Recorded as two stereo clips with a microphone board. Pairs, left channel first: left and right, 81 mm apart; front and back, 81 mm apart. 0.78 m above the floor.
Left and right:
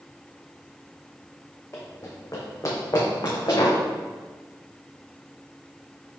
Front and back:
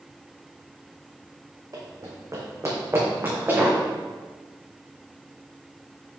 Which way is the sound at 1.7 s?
145° left.